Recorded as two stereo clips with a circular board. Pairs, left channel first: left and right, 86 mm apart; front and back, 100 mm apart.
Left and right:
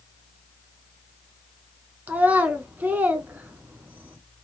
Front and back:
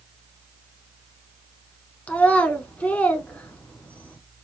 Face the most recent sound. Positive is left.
turn(degrees=-55)